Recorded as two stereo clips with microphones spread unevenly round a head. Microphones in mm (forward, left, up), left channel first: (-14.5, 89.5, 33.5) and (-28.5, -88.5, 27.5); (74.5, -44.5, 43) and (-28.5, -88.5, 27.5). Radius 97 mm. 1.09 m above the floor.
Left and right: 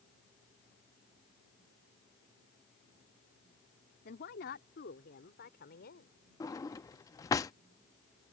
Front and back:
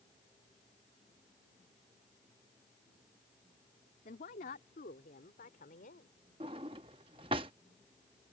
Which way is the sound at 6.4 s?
150° left.